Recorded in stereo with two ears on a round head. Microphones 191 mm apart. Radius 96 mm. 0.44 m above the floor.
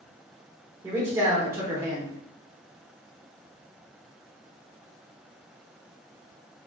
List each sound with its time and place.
0.8 s a man speaking: 15° right (ahead or behind), 0.9 m